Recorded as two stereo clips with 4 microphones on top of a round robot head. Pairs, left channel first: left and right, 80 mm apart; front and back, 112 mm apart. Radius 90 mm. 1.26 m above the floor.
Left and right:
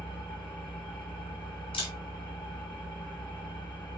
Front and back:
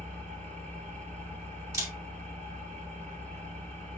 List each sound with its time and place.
0.0 s an engine running: 165° left, 2 m
1.7 s a camera shutter: 120° left, 2.0 m